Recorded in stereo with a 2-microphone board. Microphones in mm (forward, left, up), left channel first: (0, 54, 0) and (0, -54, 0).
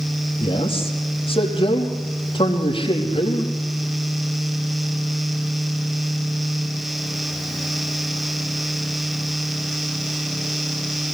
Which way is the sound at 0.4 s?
55° left (ahead or behind).